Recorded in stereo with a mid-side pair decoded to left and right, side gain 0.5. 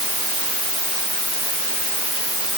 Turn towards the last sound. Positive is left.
No sound to turn to.